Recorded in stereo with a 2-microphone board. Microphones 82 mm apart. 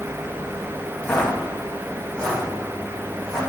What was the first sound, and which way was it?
Footsteps, 20° left (ahead or behind).